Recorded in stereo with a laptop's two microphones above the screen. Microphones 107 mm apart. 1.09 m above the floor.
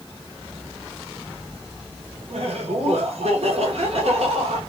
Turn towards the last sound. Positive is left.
turn(degrees=-75)  # may be behind; listen again after turning